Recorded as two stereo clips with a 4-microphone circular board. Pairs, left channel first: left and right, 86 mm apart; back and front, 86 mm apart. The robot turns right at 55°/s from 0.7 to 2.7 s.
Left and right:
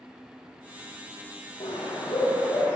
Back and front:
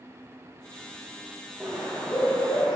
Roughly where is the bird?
Left.